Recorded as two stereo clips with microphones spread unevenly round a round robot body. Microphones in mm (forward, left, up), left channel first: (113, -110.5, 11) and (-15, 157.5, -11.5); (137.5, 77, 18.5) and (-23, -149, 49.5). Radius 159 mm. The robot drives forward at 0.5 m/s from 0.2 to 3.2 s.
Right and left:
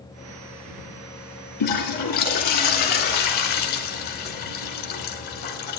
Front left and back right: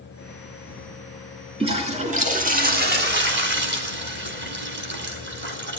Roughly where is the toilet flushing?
Ahead right.